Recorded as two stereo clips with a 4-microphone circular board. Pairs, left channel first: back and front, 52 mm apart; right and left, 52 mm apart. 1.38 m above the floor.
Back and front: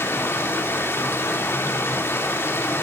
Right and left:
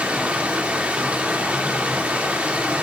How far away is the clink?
I don't hear a clink.